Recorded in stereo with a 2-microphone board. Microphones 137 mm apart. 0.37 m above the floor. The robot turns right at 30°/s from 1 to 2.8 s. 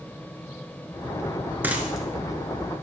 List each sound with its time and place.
1.6 s a dropped coin: 15° right (ahead or behind), 1.2 m; by 2.8 s 20° left (ahead or behind), 1.2 m